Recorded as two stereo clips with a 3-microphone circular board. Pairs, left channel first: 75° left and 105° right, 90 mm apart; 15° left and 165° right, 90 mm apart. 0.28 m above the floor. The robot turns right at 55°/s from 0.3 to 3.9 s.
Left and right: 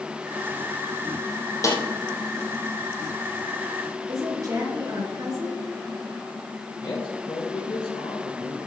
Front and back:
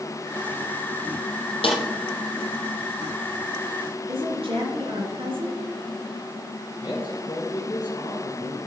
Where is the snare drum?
20° left, 2.5 m; by 1.8 s 30° left, 2.5 m.